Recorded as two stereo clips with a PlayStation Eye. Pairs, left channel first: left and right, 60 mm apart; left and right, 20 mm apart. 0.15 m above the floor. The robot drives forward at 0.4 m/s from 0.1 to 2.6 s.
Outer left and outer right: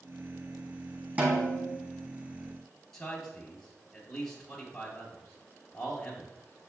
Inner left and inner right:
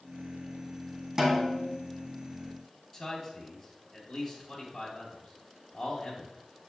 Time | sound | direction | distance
1.2 | a snare drum | 30° right (ahead or behind) | 2.5 m
2.9 | a man speaking | 10° left (ahead or behind) | 2.5 m